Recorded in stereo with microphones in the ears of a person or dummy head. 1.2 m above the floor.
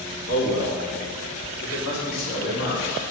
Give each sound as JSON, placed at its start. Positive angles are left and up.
{"t": 0.3, "sound": "a man speaking", "side_deg": 75, "distance_m": 2.0}